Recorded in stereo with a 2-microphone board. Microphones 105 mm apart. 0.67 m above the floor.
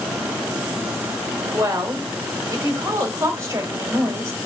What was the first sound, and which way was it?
A woman speaking, 30° right (ahead or behind).